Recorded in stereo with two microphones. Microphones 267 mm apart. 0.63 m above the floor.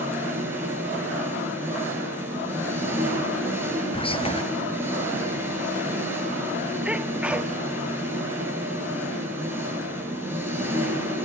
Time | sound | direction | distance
0.0 | an engine running | 10° right (ahead or behind) | 8 m
3.9 | whispering | 20° left (ahead or behind) | 0.5 m
6.8 | a sneeze | 5° right (ahead or behind) | 1.0 m